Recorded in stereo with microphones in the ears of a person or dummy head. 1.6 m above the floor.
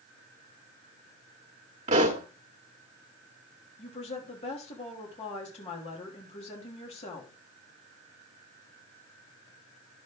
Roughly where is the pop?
Right.